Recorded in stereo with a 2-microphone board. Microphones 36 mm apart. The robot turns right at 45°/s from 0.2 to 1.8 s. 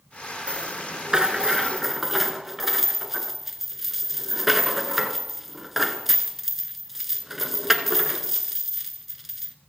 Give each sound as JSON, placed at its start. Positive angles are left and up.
{"t": 0.5, "sound": "a rattle", "azimuth_deg": -65, "distance_m": 1.3}